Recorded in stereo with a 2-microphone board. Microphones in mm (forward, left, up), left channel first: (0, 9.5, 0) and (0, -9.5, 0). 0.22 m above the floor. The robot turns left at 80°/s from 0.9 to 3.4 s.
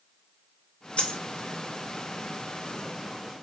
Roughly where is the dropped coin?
Left.